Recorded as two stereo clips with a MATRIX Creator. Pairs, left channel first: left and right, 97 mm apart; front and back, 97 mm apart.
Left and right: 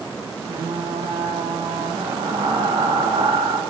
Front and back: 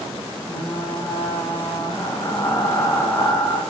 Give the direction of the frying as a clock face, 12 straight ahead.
2 o'clock.